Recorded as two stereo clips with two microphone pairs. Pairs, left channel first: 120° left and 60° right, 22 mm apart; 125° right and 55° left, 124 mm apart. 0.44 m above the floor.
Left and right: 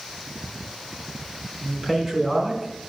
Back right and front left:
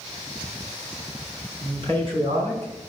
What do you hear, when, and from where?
1.6 s a man speaking: 10° left, 4.5 m; by 2.7 s 20° left, 4.5 m